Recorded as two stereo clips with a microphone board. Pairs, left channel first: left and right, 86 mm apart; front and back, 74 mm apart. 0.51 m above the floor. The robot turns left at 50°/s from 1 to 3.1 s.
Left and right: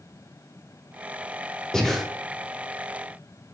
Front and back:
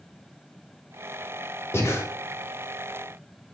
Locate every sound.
1.7 s breathing: 15° left, 0.5 m; by 2.0 s straight ahead, 0.5 m